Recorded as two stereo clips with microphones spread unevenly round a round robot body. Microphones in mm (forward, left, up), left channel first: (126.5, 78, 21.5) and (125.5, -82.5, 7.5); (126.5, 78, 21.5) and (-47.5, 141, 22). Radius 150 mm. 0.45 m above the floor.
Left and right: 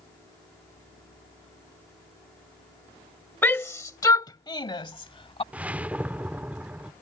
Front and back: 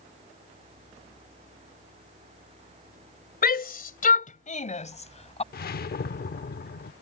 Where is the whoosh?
15° right.